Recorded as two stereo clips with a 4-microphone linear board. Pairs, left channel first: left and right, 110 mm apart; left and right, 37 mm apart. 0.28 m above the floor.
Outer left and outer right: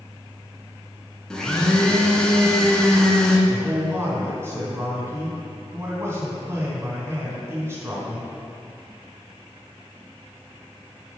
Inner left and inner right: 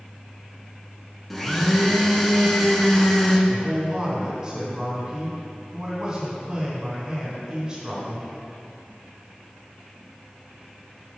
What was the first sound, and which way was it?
A blender, 5° left (ahead or behind).